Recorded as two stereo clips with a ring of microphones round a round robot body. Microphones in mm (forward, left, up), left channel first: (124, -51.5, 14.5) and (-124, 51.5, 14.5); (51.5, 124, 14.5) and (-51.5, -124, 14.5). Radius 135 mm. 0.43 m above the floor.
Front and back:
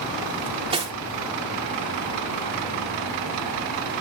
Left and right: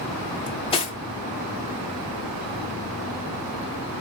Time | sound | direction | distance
0.5 | cutlery clinking | 110° left | 0.6 m